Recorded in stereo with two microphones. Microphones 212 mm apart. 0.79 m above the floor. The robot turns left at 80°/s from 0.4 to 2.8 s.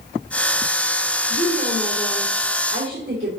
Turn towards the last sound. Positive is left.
turn(degrees=-60)